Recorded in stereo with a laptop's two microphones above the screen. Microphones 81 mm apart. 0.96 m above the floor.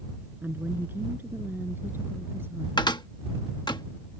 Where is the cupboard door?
60° left (ahead or behind).